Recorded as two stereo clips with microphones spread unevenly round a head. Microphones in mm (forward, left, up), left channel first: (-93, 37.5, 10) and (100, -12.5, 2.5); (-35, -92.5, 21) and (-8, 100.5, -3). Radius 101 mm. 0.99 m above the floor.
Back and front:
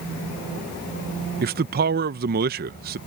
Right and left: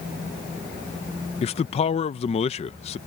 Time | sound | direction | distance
1.4 | a man speaking | 40° right | ?